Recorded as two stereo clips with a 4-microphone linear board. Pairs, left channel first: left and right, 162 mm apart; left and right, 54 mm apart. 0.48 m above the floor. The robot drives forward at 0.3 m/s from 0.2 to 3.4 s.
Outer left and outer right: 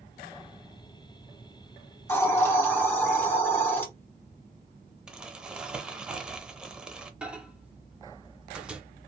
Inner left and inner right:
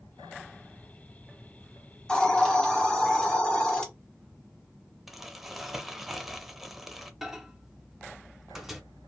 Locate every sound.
2.1 s a hiss: 15° left (ahead or behind), 1.0 m
5.1 s crumpling: 5° right (ahead or behind), 0.5 m
7.2 s a microwave: 5° right (ahead or behind), 0.5 m